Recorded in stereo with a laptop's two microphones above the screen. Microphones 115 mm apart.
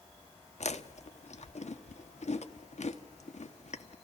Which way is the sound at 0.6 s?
70° left (ahead or behind).